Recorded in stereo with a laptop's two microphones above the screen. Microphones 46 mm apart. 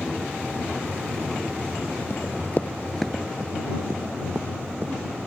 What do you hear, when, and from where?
2.1 s running footsteps: 60° left (ahead or behind); by 4.9 s 50° right (ahead or behind)